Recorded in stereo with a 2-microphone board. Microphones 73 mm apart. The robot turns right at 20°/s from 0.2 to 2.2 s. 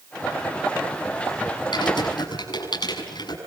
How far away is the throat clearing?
No throat clearing in this recording.